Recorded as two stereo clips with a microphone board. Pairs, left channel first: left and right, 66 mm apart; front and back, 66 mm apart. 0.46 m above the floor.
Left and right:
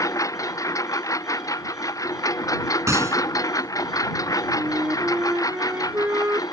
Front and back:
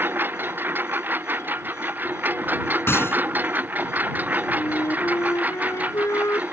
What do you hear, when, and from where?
0.0 s a lawn mower: 120° left; by 6.5 s 115° left
2.9 s a gunshot: 50° right
4.6 s a flute: 35° right